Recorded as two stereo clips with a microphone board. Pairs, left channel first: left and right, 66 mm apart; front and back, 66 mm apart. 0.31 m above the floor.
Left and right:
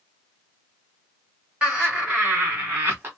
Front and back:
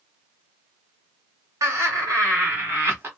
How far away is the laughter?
About 2 m.